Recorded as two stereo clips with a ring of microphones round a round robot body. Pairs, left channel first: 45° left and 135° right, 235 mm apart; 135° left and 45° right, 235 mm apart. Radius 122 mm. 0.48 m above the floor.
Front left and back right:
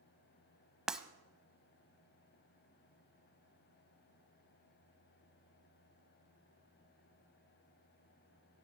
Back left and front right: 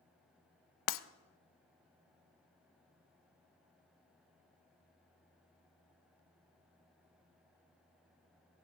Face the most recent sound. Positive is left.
turn(degrees=135)